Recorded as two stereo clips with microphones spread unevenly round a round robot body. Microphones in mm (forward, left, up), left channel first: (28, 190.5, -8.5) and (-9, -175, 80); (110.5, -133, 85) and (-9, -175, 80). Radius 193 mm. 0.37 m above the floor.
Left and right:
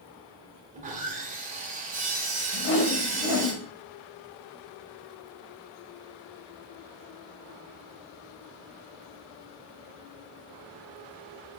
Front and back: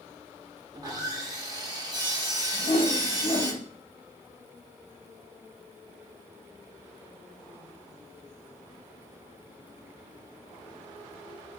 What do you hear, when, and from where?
0.7 s sawing: 170° right, 1.0 m
2.5 s a whoosh: 55° left, 0.6 m